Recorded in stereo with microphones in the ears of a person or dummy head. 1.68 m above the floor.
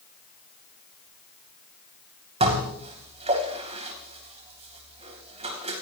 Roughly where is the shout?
No shout in this recording.